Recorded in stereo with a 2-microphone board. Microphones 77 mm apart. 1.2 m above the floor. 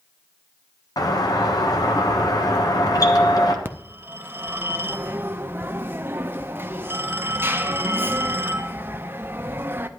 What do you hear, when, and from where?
1.0 s a doorbell: 60° left (ahead or behind), 1.1 m
3.6 s a phone ringing: 30° right (ahead or behind), 0.6 m